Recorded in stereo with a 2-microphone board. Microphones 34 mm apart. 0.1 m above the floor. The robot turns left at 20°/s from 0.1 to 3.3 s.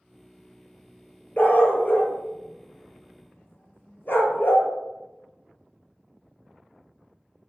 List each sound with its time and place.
1.4 s a dog barking: 50° left (ahead or behind), 0.5 m; by 4.7 s 60° left (ahead or behind), 0.5 m